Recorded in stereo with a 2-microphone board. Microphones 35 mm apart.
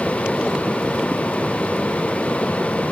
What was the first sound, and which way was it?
Only background noise.